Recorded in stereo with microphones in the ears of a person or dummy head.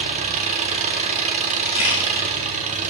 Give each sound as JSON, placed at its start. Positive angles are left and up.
{"t": 0.0, "sound": "an engine running", "side_deg": -35, "distance_m": 0.9}
{"t": 1.6, "sound": "a camera shutter", "side_deg": 55, "distance_m": 3.5}